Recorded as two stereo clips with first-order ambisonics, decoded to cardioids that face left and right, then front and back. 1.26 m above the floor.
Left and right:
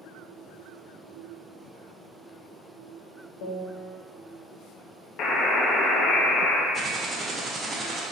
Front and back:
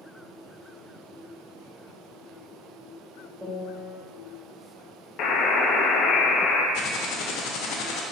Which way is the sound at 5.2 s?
45° left.